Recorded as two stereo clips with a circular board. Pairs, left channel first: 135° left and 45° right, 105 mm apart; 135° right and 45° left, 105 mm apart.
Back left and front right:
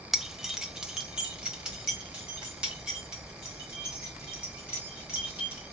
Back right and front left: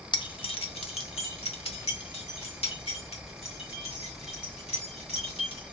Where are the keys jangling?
130° right, 0.6 m; by 5.7 s 125° right, 4 m.